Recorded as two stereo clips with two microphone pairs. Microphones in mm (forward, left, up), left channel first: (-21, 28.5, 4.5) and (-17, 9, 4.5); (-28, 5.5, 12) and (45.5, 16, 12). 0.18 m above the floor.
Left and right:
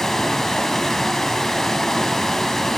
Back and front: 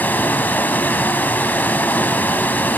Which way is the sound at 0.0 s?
150° left.